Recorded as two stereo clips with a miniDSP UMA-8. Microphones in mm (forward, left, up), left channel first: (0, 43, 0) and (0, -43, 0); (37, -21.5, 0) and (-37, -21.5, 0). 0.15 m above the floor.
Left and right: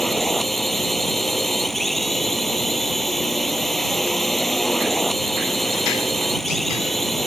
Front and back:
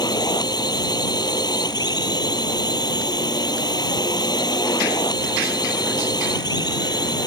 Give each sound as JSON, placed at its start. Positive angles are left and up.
{"t": 0.0, "sound": "a drone", "azimuth_deg": 0}